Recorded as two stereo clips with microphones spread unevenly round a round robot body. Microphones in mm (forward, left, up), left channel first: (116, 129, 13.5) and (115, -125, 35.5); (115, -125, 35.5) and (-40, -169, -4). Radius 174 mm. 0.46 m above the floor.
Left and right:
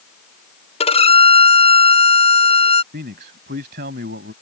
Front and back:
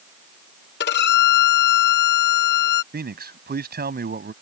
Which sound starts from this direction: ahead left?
A violin, at 0.8 s.